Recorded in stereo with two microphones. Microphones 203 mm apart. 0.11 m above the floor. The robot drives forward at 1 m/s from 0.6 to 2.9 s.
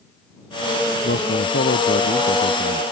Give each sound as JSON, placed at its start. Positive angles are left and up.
{"t": 1.0, "sound": "a man speaking", "side_deg": 75}